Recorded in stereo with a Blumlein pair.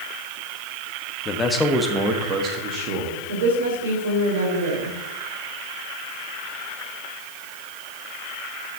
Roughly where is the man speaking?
Ahead.